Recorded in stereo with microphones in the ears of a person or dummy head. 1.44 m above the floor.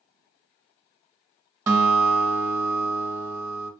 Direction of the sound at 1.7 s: 20° right (ahead or behind).